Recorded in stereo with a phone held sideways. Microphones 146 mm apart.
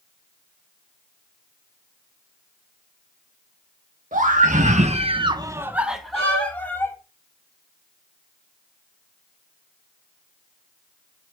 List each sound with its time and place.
4.1 s a scream: 60° right (ahead or behind), 1.4 m; by 7.0 s 15° left (ahead or behind), 1.8 m
6.1 s a violin: 45° left (ahead or behind), 4 m